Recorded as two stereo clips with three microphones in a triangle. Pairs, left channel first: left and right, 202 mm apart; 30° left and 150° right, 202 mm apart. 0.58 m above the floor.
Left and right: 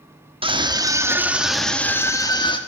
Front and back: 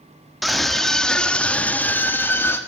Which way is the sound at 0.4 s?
60° right.